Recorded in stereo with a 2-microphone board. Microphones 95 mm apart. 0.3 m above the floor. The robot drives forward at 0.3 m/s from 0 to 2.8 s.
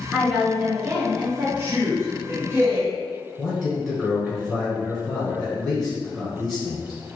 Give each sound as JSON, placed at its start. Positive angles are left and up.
{"t": 0.1, "sound": "a woman speaking", "side_deg": -15, "distance_m": 1.6}
{"t": 1.6, "sound": "a man speaking", "side_deg": -30, "distance_m": 1.4}
{"t": 3.4, "sound": "a man speaking", "side_deg": -5, "distance_m": 1.3}